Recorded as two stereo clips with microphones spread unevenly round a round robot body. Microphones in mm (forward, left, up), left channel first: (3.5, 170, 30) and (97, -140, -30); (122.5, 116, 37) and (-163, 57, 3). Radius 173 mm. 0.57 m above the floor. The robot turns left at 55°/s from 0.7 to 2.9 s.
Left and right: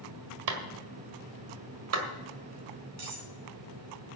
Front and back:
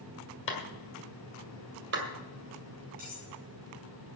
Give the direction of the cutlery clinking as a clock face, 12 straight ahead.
3 o'clock.